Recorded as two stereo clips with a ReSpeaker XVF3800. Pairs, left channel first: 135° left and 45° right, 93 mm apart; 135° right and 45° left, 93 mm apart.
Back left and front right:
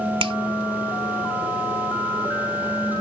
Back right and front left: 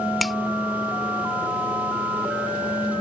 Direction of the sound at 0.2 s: 45° right.